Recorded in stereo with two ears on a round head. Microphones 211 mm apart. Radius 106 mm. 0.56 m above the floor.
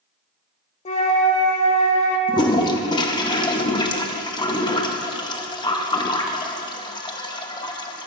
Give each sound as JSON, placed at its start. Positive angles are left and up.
{"t": 0.8, "sound": "a flute", "side_deg": 30, "distance_m": 1.0}
{"t": 2.3, "sound": "a toilet flushing", "side_deg": 20, "distance_m": 0.6}